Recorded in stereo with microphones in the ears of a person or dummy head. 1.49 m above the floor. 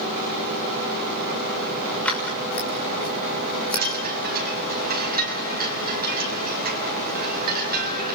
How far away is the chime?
About 6 m.